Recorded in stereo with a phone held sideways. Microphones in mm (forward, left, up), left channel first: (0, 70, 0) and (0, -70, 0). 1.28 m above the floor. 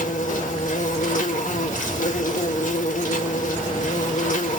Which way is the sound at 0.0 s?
65° left (ahead or behind).